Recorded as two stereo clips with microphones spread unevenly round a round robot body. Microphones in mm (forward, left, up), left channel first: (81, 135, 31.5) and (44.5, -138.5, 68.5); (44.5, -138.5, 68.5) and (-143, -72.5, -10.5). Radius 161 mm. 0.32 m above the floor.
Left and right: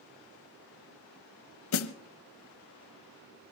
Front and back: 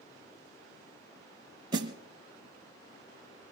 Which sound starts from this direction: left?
A snare drum, at 1.7 s.